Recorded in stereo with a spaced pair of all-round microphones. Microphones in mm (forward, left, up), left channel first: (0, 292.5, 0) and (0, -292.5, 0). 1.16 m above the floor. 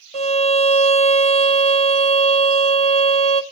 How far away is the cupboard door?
I don't hear a cupboard door.